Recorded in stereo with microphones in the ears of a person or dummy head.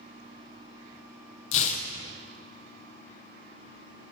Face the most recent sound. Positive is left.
turn(degrees=35)  # may be behind; listen again after turning